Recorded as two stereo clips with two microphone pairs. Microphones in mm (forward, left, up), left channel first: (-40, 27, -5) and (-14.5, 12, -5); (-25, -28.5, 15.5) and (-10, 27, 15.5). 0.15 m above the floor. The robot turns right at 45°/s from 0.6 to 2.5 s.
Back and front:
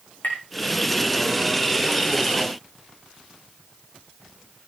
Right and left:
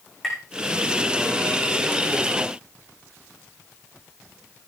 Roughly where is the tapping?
Behind.